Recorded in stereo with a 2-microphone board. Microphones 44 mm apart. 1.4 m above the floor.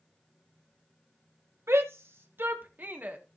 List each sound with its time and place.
1.7 s a shout: 75° right (ahead or behind), 1.5 m; by 3.2 s 40° right (ahead or behind), 1.7 m